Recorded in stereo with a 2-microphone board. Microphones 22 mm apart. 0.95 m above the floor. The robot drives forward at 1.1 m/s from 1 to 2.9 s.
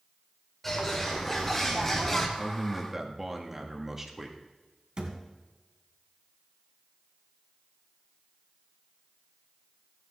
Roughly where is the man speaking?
Centre.